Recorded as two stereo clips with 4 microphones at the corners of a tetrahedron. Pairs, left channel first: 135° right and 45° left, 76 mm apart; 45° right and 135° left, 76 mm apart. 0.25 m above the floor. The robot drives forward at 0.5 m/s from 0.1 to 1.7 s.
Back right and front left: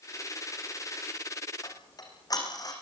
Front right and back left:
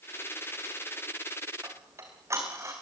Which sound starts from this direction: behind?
Ticking, at 1.6 s.